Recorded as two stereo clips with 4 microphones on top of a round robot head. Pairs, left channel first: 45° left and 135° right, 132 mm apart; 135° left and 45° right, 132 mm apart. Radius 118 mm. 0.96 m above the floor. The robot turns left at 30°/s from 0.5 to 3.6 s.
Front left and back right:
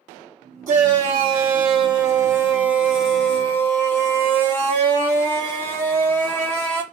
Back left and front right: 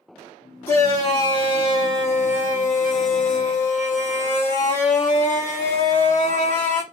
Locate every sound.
0.7 s a shout: 155° right, 1.9 m; by 6.8 s 120° left, 1.9 m